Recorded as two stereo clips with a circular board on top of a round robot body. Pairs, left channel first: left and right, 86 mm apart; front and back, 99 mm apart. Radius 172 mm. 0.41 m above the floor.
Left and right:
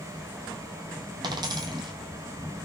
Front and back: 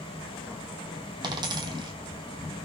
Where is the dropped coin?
135° right, 1.0 m.